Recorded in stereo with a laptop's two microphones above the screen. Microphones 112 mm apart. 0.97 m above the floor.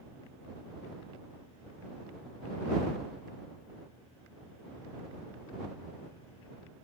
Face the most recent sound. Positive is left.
No sound to turn to.